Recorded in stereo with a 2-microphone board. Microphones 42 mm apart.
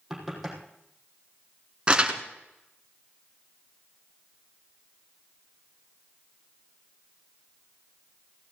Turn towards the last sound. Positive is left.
turn(degrees=-25)  # may be behind; listen again after turning